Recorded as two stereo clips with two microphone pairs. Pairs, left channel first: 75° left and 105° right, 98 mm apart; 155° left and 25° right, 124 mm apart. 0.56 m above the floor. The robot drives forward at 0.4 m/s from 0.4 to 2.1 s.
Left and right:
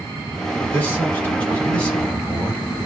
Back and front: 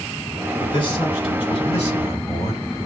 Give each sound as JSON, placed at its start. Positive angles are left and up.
{"t": 0.6, "sound": "a man speaking", "azimuth_deg": 130, "distance_m": 1.7}